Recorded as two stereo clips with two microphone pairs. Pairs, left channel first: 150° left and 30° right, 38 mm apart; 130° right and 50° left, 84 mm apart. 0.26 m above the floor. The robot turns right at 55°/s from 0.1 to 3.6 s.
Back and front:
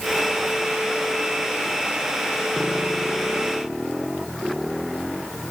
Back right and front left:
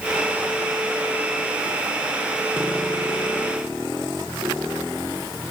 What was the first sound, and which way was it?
Only background noise.